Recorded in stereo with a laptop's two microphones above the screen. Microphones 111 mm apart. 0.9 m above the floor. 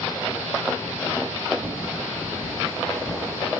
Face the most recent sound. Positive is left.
turn(degrees=0)  # may be behind; listen again after turning